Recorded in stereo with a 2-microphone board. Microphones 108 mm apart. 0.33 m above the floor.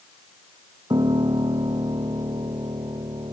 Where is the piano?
40° right (ahead or behind).